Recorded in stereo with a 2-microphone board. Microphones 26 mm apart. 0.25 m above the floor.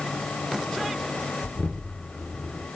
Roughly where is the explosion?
Left.